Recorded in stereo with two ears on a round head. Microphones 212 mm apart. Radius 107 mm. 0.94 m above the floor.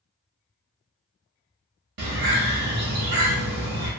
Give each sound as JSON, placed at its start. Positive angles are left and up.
{"t": 2.0, "sound": "a bird", "side_deg": -45, "distance_m": 0.9}